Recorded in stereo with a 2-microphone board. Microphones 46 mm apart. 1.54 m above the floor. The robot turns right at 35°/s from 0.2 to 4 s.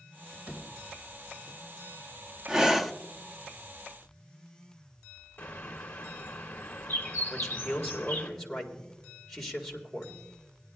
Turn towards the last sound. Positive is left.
turn(degrees=10)  # may be behind; listen again after turning